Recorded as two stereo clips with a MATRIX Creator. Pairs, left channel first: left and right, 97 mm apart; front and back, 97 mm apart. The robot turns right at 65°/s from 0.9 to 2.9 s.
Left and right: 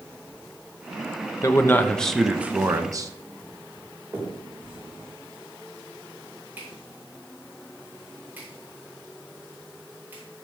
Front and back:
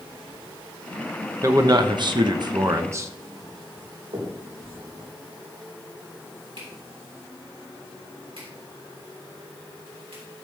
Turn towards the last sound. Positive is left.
turn(degrees=-160)